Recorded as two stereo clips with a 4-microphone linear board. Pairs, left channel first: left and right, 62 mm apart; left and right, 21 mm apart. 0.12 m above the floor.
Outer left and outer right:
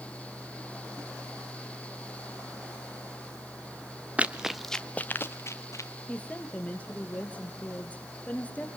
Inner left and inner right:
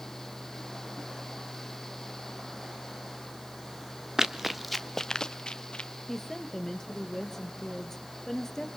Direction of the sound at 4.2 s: 25° right (ahead or behind).